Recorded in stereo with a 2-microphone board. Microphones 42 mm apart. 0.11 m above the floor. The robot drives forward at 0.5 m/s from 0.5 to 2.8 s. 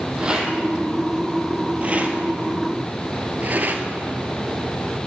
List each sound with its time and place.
0.2 s a rattle: 20° right (ahead or behind), 1.8 m; by 3.8 s 45° right (ahead or behind), 1.0 m